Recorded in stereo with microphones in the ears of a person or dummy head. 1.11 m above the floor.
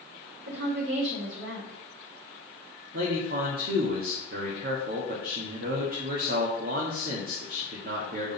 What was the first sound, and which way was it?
A woman speaking, 65° right (ahead or behind).